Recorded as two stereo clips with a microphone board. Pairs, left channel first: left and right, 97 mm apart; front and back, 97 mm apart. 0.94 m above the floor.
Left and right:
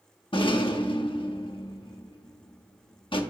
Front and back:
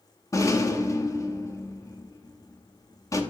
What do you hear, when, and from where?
0.3 s a rattle: 60° left, 0.8 m